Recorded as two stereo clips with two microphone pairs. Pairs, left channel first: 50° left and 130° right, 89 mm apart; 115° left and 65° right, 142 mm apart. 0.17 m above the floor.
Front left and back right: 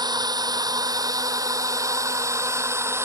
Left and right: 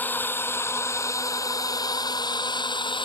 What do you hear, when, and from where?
0.0 s a drone: 165° right; by 3.1 s 170° left